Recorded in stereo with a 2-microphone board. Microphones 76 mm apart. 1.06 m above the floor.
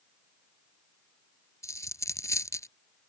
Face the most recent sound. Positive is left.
turn(degrees=40)  # may be behind; listen again after turning